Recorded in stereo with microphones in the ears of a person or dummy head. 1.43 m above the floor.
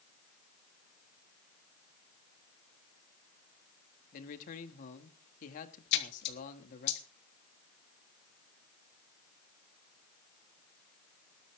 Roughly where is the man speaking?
Left.